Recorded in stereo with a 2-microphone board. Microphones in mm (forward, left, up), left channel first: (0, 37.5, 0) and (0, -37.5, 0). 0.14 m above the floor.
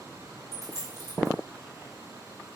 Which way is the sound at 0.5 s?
45° left (ahead or behind).